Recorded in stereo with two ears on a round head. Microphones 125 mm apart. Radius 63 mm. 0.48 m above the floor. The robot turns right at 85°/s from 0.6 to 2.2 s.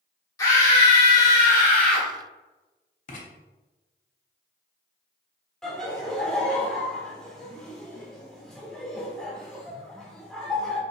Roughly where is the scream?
Ahead left.